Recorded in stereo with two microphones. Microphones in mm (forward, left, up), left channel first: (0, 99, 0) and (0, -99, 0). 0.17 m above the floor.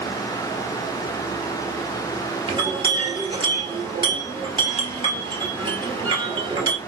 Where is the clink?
25° right (ahead or behind), 1.9 m.